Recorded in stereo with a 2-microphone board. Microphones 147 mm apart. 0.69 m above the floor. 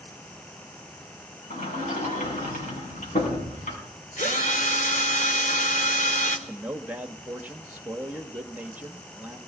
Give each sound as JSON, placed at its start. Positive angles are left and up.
{"t": 1.5, "sound": "a sliding door", "side_deg": 60, "distance_m": 6.5}
{"t": 4.2, "sound": "a drill", "side_deg": 60, "distance_m": 2.0}
{"t": 6.5, "sound": "a man speaking", "side_deg": -10, "distance_m": 1.1}